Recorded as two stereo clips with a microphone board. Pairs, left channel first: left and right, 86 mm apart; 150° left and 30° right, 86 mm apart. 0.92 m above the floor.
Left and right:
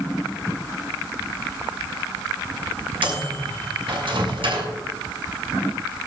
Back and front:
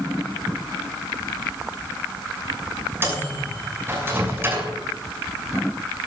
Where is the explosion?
No explosion in this recording.